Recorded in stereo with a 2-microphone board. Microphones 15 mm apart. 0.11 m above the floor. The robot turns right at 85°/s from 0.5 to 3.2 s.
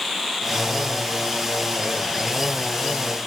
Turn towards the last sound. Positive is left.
No sound to turn to.